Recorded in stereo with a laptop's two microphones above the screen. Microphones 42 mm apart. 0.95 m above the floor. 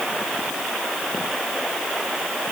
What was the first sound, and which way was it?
Only background noise.